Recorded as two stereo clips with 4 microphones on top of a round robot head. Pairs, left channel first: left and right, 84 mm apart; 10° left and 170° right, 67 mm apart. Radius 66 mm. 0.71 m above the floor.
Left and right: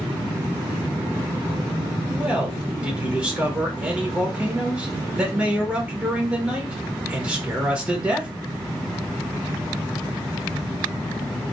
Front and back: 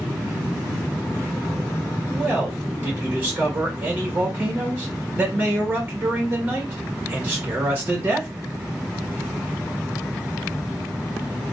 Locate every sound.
2.1 s a man speaking: 145° right, 1.1 m